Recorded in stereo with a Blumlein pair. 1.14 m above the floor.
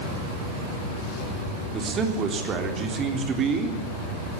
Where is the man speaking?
25° right, 3.5 m.